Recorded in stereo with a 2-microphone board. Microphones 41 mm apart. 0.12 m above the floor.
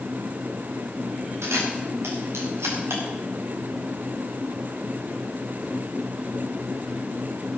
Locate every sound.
1.4 s a camera shutter: 85° right, 7 m